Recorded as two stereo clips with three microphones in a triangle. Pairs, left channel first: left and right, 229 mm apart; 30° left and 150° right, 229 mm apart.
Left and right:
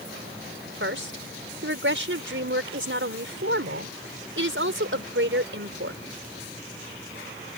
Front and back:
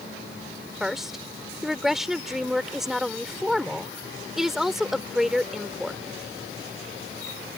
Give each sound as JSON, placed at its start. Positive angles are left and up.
{"t": 0.8, "sound": "a woman speaking", "azimuth_deg": -60}